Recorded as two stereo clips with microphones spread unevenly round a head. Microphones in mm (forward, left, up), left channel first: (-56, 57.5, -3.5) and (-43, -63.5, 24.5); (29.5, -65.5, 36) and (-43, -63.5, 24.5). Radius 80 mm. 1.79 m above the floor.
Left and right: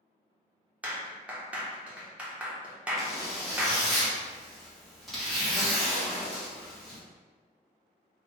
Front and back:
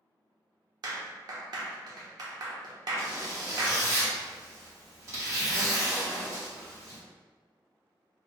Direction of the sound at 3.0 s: 150° right.